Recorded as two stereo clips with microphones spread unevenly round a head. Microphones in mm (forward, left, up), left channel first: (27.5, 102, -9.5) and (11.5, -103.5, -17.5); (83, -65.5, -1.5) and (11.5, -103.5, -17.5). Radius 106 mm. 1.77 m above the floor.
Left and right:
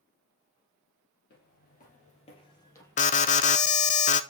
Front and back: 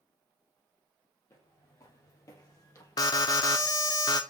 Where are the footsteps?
70° left, 3 m; by 4.0 s 20° right, 3 m.